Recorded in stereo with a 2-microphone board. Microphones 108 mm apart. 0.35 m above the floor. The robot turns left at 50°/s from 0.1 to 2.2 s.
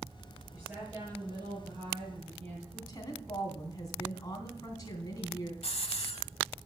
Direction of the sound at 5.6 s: 70° left (ahead or behind).